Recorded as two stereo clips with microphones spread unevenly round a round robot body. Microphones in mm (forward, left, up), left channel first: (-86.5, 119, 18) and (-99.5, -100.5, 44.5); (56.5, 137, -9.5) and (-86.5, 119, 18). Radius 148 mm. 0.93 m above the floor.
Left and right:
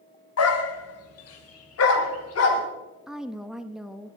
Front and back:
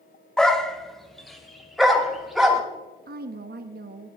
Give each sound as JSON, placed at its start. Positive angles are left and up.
{"t": 0.4, "sound": "a dog barking", "azimuth_deg": 95, "distance_m": 1.3}
{"t": 3.1, "sound": "a woman speaking", "azimuth_deg": 180, "distance_m": 0.9}